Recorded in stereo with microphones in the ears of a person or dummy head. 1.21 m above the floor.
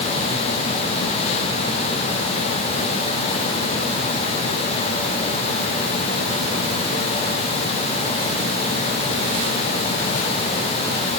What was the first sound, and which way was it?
Only background noise.